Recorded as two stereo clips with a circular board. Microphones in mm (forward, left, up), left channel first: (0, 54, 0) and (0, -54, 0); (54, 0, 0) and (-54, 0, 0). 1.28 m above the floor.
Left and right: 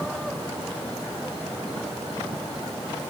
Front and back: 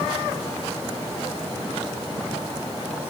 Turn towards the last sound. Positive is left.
No sound to turn to.